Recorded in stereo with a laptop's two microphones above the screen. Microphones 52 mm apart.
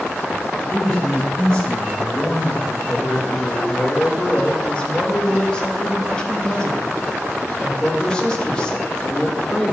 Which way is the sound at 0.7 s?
5° left (ahead or behind).